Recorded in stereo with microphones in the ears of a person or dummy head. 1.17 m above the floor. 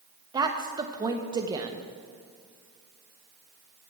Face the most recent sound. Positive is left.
turn(degrees=-20)  # may be behind; listen again after turning